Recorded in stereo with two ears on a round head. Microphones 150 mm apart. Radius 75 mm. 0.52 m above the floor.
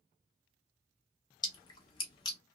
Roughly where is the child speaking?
I don't hear a child speaking.